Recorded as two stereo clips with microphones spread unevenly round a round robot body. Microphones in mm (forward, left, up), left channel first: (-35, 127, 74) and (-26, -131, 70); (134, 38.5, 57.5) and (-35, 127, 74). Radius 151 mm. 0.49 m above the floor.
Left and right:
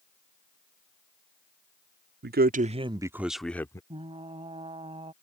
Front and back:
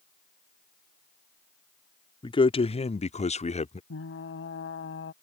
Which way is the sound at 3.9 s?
15° right.